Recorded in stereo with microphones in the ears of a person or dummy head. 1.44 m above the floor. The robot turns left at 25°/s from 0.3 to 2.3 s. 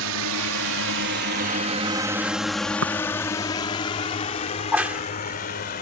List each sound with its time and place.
0.0 s a drone: 65° right (ahead or behind); by 5.8 s 40° left (ahead or behind)
2.8 s tapping: 70° right (ahead or behind)
4.6 s a crack: 10° right (ahead or behind)